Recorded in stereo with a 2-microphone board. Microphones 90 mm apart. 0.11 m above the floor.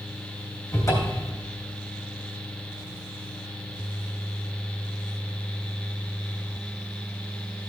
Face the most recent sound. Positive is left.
turn(degrees=40)  # may be behind; listen again after turning